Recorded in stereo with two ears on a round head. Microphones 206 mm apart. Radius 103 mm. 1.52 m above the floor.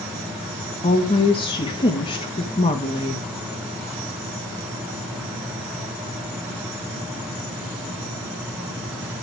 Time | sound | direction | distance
0.8 | a woman speaking | 25° left (ahead or behind) | 1.8 m